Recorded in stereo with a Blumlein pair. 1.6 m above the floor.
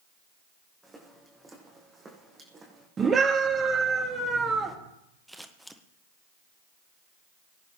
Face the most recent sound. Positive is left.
turn(degrees=0)